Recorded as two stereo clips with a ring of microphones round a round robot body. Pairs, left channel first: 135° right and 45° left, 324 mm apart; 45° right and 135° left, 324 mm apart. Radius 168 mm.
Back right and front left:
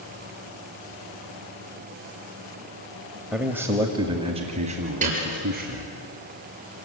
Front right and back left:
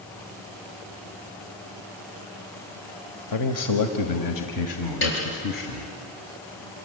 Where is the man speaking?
45° right, 1.4 m; by 6.0 s 15° right, 3 m.